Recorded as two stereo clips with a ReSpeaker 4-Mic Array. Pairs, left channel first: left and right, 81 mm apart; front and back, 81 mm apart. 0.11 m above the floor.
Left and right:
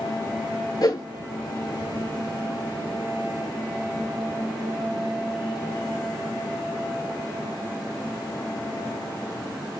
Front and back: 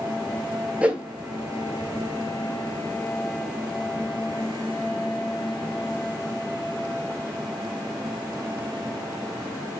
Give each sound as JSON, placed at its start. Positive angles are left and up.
{"t": 0.8, "sound": "a whoosh", "azimuth_deg": 105, "distance_m": 0.6}